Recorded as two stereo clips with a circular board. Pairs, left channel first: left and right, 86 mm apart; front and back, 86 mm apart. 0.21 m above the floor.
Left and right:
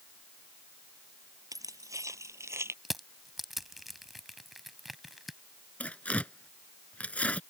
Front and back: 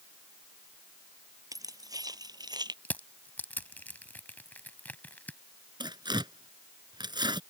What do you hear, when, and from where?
1.5 s keys jangling: 135° right; by 2.8 s 150° right
2.9 s crushing: 5° right
5.8 s tearing paper: 165° left